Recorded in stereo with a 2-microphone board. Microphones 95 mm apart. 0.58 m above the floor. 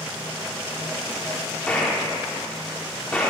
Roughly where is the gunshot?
Centre.